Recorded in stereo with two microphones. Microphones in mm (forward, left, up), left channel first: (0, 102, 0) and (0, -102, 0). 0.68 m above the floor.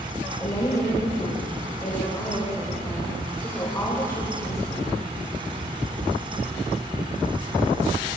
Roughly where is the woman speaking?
Centre.